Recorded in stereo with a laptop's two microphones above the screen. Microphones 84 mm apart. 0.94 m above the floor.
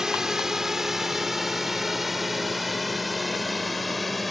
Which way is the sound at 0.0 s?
5° right (ahead or behind).